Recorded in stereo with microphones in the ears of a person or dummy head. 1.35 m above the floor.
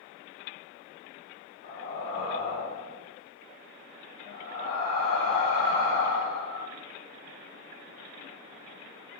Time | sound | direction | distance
1.6 | breathing | 35° left (ahead or behind) | 1.5 m